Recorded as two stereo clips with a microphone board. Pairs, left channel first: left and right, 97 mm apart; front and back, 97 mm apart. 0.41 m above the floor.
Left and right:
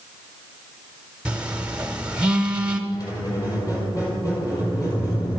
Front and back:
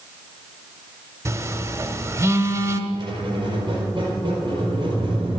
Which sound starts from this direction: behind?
A phone buzzing, at 1.2 s.